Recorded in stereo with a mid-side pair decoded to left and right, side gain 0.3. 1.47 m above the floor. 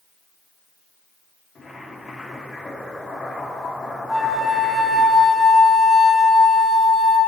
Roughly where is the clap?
No clap in this recording.